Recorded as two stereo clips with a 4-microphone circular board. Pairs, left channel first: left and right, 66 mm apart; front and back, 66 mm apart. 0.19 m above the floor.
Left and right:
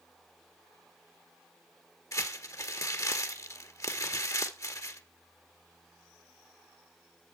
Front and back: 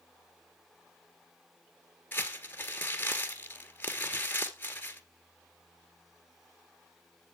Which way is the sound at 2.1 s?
60° left.